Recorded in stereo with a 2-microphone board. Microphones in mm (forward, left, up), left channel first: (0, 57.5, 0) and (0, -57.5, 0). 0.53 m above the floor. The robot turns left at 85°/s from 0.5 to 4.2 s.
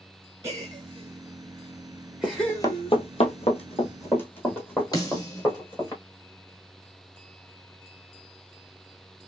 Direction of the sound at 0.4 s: 25° right (ahead or behind).